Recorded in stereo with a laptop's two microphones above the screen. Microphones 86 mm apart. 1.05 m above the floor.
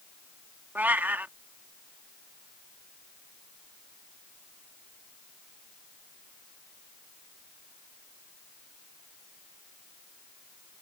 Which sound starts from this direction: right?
A cat meowing, at 0.8 s.